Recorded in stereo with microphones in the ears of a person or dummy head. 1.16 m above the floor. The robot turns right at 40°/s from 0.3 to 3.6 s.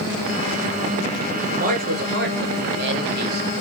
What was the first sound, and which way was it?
A man speaking, 135° right.